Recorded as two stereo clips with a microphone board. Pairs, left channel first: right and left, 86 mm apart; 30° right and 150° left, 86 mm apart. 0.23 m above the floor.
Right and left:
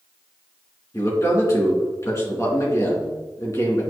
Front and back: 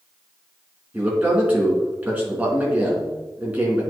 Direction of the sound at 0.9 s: 140° right.